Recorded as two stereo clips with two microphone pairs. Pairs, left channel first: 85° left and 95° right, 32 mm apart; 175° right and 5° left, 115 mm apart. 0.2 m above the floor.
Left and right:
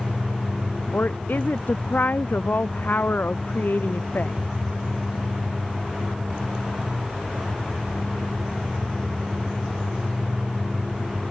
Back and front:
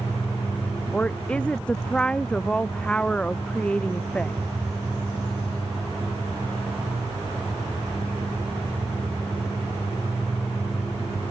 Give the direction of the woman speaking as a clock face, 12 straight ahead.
9 o'clock.